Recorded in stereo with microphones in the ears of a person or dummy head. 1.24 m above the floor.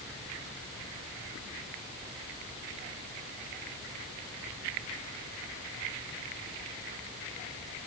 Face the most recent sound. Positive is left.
No sound to turn to.